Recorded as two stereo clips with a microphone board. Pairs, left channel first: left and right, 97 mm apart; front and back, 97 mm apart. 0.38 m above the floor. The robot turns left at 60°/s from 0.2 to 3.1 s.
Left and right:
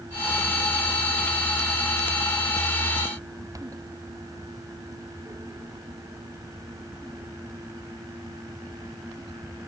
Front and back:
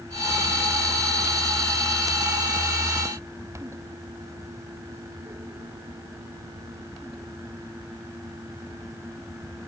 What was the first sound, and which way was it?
Only background noise.